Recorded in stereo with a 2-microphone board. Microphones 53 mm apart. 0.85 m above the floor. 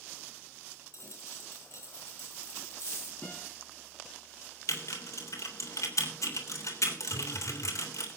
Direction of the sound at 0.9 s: 55° left (ahead or behind).